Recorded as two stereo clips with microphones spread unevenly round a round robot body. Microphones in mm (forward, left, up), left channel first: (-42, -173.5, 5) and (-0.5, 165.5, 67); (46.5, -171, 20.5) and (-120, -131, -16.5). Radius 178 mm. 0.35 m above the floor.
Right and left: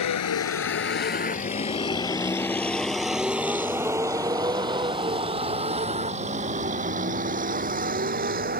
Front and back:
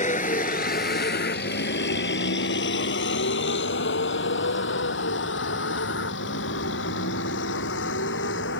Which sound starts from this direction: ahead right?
A vehicle, at 0.0 s.